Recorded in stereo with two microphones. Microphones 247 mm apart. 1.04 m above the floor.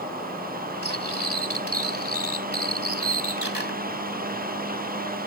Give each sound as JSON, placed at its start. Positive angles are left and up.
{"t": 0.8, "sound": "cutlery clinking", "side_deg": -80}